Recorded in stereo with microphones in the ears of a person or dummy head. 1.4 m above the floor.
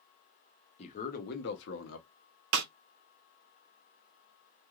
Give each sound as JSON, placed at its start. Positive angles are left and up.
{"t": 0.8, "sound": "a man speaking", "side_deg": 40, "distance_m": 1.0}
{"t": 2.5, "sound": "a snare drum", "side_deg": -70, "distance_m": 0.5}